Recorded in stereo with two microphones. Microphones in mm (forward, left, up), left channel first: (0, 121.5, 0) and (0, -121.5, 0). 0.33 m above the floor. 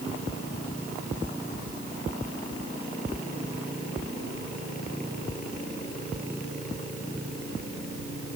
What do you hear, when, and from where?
Only background noise.